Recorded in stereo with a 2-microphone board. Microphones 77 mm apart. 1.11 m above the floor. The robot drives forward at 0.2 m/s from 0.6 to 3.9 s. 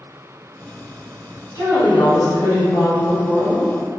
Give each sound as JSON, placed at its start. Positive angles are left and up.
{"t": 1.5, "sound": "a woman speaking", "side_deg": 40, "distance_m": 0.9}